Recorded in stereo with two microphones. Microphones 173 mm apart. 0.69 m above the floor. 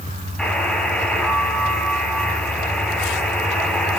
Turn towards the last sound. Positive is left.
turn(degrees=5)  # may be behind; listen again after turning